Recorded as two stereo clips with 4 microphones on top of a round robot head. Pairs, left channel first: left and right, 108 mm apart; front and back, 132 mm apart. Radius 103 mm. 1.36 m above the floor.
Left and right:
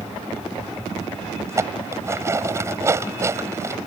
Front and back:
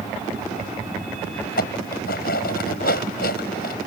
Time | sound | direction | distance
1.5 | dishes clattering | 25° right | ?